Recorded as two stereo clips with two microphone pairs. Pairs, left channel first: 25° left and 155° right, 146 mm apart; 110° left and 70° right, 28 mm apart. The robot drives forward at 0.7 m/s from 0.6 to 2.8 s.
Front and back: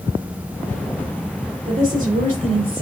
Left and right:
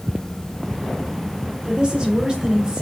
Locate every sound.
1.6 s a woman speaking: 120° right, 3 m; by 2.8 s 130° right, 3.5 m